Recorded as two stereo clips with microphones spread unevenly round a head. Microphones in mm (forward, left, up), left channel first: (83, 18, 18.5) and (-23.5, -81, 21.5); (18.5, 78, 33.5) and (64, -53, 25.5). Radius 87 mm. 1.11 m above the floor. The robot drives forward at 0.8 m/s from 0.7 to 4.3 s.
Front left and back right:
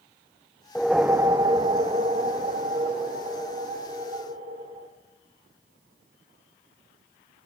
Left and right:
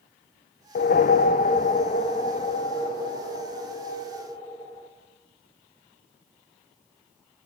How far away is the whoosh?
About 0.5 m.